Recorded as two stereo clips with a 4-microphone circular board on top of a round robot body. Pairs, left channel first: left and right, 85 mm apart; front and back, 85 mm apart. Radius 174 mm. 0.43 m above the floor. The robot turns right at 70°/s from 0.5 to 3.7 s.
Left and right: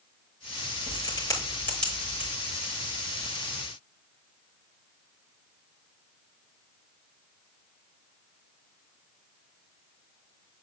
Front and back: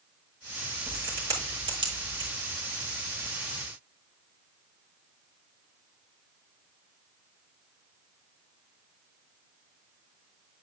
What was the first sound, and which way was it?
A crack, 100° left.